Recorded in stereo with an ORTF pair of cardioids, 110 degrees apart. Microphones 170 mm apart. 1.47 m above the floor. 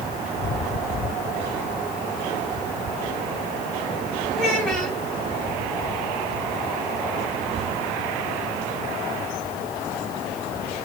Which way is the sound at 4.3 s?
5° left.